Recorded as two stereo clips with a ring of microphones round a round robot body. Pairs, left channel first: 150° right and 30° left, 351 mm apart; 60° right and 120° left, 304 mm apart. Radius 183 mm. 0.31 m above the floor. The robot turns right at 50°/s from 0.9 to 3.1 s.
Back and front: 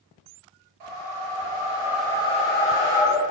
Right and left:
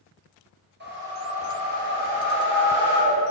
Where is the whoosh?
65° left, 2.5 m; by 3.2 s 175° left, 2.5 m.